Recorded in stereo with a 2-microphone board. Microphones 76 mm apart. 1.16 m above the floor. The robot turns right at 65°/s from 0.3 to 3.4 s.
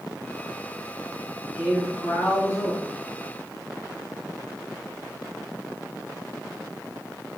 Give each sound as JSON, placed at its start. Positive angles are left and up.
{"t": 1.5, "sound": "a man speaking", "azimuth_deg": -15, "distance_m": 1.6}